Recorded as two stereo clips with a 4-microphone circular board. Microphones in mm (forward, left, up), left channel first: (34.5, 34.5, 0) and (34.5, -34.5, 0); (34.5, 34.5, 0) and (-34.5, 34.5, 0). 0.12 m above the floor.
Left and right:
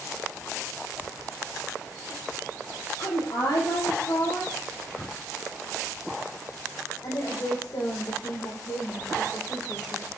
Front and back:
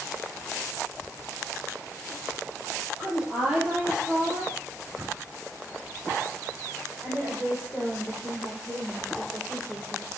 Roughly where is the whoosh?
Behind left.